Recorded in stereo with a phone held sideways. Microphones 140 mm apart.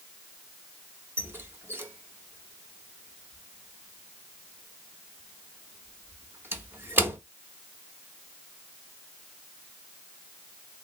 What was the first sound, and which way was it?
A squeak, 15° right (ahead or behind).